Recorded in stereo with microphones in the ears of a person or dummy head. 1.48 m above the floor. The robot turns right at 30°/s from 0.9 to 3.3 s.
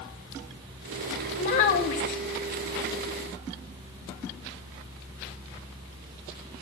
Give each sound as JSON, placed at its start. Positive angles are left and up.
{"t": 1.4, "sound": "a child speaking", "side_deg": 40, "distance_m": 1.0}